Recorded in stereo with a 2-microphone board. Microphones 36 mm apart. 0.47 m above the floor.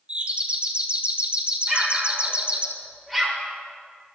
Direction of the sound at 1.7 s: Centre (ahead or behind).